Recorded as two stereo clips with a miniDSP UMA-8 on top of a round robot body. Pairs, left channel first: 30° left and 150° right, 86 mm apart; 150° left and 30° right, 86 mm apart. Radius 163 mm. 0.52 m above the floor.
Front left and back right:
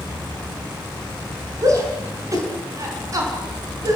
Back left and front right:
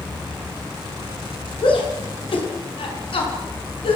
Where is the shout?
160° left, 5.5 m.